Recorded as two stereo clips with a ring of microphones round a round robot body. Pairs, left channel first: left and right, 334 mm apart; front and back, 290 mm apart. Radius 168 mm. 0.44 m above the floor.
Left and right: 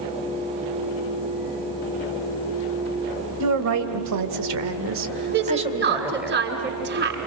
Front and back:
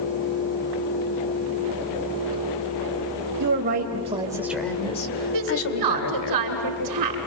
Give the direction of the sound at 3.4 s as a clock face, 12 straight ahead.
4 o'clock.